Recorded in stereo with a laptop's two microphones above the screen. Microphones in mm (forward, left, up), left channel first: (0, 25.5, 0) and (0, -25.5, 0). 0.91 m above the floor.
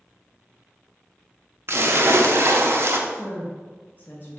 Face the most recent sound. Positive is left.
turn(degrees=40)  # may be behind; listen again after turning